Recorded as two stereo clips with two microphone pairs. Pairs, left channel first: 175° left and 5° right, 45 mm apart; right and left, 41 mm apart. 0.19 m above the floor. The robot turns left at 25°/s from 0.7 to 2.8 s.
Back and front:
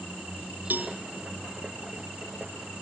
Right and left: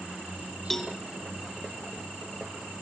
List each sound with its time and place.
0.7 s a cowbell: 5° right, 0.8 m; by 1.0 s 10° right, 0.8 m